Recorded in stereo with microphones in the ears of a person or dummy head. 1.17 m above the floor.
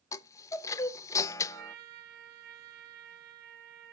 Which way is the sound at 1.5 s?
55° right (ahead or behind).